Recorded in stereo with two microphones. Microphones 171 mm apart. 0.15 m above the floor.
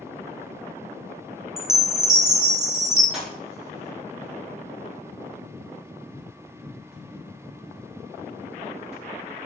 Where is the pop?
5° right (ahead or behind), 3.5 m.